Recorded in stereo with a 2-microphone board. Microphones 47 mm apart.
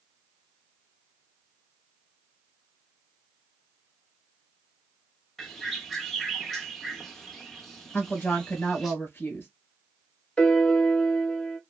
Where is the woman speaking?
45° left (ahead or behind), 1.8 m.